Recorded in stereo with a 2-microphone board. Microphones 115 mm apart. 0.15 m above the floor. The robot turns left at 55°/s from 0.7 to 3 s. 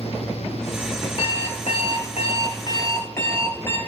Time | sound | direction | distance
1.2 | an alarm clock | 125° left | 1.9 m